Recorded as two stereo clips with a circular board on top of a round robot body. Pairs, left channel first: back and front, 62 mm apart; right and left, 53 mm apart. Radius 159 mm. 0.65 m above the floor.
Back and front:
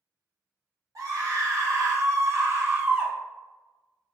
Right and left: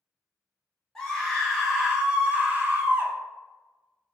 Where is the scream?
10° right, 1.9 m; by 3.1 s 55° left, 1.6 m.